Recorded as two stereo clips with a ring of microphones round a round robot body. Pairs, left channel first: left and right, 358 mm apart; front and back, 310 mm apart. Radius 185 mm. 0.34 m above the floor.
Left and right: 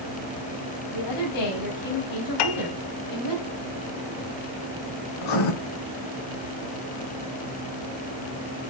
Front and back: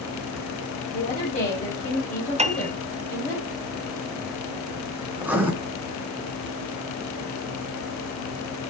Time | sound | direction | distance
0.9 | a woman speaking | 65° left | 3.5 m
2.4 | a piano | 110° left | 1.2 m
5.2 | writing | 95° left | 2 m